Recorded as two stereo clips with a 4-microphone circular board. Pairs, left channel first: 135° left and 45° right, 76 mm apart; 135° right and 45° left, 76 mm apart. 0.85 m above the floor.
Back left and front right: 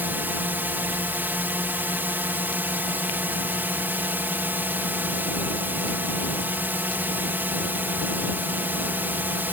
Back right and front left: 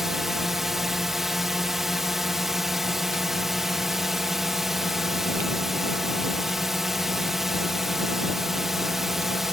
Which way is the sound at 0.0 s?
35° right.